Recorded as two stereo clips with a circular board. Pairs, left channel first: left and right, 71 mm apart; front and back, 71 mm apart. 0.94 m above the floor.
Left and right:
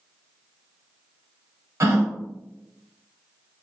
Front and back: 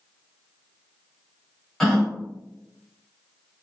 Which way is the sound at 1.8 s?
85° right.